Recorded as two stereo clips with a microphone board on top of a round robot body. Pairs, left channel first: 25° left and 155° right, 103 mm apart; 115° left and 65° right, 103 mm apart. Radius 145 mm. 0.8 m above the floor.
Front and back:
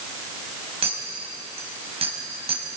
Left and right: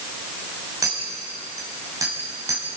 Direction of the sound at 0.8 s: 125° right.